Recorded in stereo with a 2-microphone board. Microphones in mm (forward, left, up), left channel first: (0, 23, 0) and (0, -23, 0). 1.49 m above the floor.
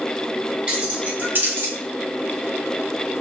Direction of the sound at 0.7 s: 20° right (ahead or behind).